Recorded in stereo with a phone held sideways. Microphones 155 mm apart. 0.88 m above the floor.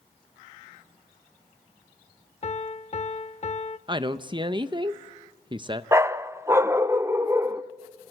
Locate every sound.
2.4 s a piano: 45° left (ahead or behind), 0.7 m
3.9 s a woman speaking: 30° right (ahead or behind), 0.7 m
5.9 s a dog barking: 15° right (ahead or behind), 0.6 m